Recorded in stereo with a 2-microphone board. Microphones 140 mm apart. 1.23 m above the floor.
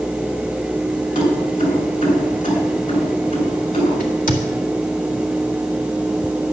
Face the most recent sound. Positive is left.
turn(degrees=70)  # may be behind; listen again after turning